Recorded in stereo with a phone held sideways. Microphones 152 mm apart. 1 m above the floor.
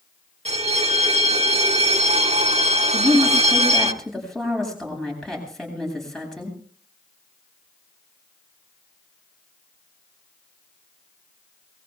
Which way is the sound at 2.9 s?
5° left (ahead or behind).